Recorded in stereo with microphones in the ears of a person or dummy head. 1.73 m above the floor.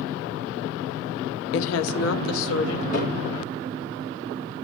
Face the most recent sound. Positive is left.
turn(degrees=50)  # may be behind; listen again after turning